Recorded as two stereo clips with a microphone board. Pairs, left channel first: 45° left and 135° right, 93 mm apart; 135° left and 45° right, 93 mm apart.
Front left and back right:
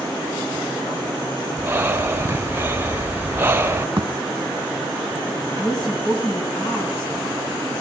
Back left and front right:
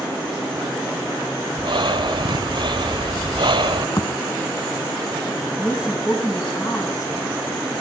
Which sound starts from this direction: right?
Breathing, at 1.6 s.